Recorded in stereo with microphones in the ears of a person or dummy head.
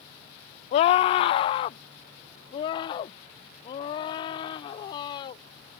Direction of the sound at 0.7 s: 35° left (ahead or behind).